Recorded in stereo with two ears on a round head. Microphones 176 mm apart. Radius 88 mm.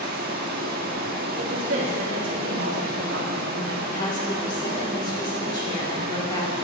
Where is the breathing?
I don't hear breathing.